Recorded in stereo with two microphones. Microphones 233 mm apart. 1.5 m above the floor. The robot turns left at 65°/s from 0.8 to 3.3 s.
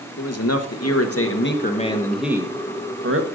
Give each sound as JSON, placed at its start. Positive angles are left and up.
{"t": 0.2, "sound": "a man speaking", "azimuth_deg": 90, "distance_m": 1.4}